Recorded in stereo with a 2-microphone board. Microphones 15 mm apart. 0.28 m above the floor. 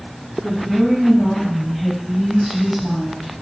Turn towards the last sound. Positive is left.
turn(degrees=-20)  # may be behind; listen again after turning